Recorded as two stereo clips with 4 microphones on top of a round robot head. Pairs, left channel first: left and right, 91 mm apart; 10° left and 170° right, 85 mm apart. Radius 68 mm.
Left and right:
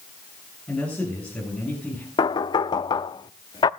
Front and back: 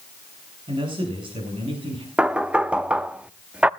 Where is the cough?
No cough in this recording.